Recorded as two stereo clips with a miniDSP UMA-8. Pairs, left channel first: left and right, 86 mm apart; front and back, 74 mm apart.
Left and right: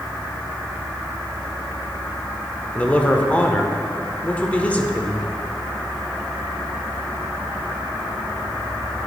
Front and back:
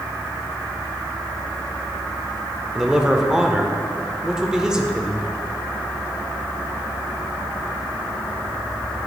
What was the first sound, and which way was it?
A man speaking, 120° left.